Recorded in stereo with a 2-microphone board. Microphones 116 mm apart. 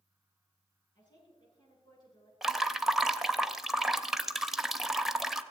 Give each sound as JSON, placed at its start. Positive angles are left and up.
{"t": 0.9, "sound": "a woman speaking", "side_deg": 40, "distance_m": 8.5}
{"t": 2.4, "sound": "dripping", "side_deg": 0, "distance_m": 0.7}